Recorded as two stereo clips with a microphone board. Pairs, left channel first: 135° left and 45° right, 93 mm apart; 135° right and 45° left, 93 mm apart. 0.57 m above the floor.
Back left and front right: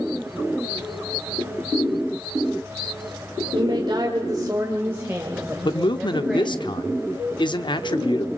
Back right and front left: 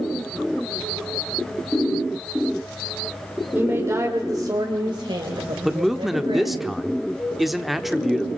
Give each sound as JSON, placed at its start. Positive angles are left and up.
{"t": 3.5, "sound": "a woman speaking", "azimuth_deg": -25, "distance_m": 1.8}
{"t": 5.7, "sound": "a man speaking", "azimuth_deg": 135, "distance_m": 0.9}